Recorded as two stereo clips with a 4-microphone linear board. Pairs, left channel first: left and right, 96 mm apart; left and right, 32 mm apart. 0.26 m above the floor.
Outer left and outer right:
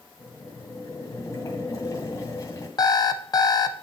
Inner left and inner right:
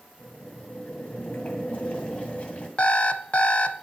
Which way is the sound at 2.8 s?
45° left (ahead or behind).